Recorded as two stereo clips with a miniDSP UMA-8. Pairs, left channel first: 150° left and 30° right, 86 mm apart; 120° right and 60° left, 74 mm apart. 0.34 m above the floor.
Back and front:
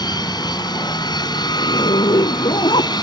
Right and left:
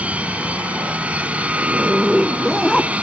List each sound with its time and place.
0.0 s an aircraft: 130° left
1.6 s a zipper: 155° left